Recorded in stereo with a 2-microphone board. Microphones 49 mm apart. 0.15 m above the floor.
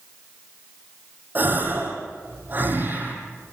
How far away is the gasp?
About 5 m.